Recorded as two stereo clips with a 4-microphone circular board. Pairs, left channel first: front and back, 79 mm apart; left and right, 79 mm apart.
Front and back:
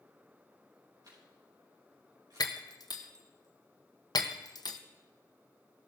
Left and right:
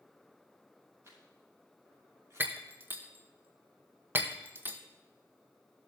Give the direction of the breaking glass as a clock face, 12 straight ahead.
1 o'clock.